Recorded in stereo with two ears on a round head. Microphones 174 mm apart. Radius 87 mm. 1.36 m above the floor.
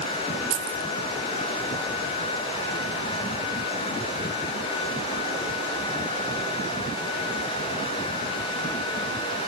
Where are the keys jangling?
70° right (ahead or behind), 1.5 m.